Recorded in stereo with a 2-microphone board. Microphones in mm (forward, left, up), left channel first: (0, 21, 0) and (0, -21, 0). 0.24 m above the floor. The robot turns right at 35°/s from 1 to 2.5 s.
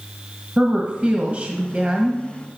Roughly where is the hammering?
I don't hear hammering.